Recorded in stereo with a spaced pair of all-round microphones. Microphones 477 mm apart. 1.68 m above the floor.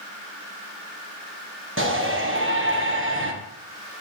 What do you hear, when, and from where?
1.8 s a shout: 25° right (ahead or behind), 1.6 m